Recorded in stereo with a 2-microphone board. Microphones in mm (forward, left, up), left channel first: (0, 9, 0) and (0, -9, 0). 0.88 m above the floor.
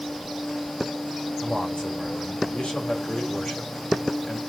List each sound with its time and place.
1.4 s a man speaking: 70° left (ahead or behind), 3.5 m